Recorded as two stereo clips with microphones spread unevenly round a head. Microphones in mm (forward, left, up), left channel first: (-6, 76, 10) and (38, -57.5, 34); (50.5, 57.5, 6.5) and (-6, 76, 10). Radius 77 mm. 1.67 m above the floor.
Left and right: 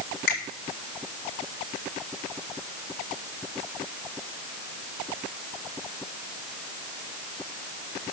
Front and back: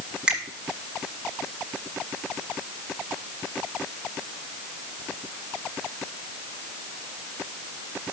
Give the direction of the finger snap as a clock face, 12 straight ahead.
9 o'clock.